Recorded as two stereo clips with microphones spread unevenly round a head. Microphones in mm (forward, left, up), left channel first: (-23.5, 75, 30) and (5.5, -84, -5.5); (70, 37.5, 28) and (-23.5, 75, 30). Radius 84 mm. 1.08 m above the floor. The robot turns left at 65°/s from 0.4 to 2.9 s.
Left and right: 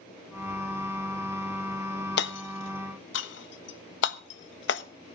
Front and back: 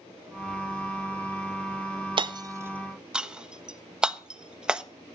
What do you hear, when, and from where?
2.2 s hammering: 125° left, 1.4 m; by 4.8 s 75° left, 1.4 m